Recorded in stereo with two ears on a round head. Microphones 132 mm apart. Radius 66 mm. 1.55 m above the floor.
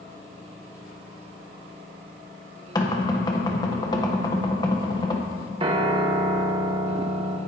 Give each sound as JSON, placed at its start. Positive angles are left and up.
{"t": 2.8, "sound": "knocking", "side_deg": 25, "distance_m": 1.2}
{"t": 5.6, "sound": "a piano", "side_deg": -35, "distance_m": 0.9}